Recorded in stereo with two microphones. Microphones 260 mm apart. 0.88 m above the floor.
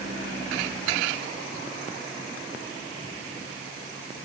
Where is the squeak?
I don't hear a squeak.